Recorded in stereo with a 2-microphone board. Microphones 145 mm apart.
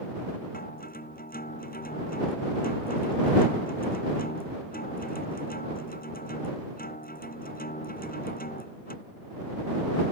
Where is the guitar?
80° left.